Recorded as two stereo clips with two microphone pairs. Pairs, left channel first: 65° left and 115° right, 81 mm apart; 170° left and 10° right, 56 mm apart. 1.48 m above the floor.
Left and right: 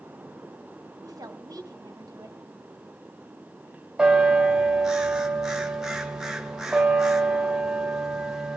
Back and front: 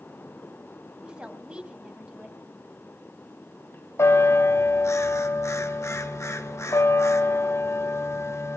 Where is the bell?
160° left, 1.1 m.